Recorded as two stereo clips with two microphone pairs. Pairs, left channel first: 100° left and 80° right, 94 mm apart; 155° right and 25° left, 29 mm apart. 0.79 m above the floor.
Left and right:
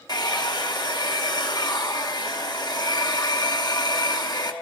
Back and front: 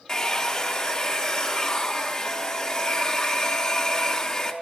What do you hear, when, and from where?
0.1 s a hair dryer: 140° left, 1.0 m